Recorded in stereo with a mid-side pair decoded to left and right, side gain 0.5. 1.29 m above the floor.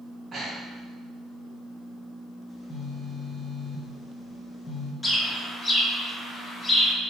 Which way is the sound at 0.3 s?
35° right.